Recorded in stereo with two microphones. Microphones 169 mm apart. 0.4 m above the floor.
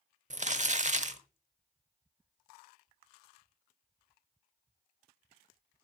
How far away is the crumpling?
About 0.9 m.